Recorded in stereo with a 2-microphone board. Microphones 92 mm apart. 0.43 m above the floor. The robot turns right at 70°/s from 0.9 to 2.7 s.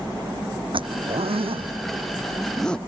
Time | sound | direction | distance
0.7 | a zipper | 65° right (ahead or behind) | ?